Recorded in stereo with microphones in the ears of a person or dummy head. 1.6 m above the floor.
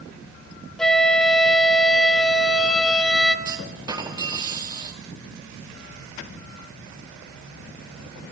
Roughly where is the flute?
Centre.